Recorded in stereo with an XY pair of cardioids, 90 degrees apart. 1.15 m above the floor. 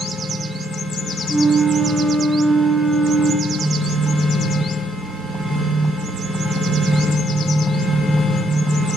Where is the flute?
Straight ahead, 1.1 m.